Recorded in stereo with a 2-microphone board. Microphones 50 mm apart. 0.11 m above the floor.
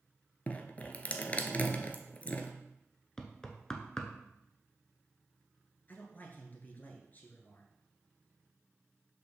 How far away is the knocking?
About 0.9 m.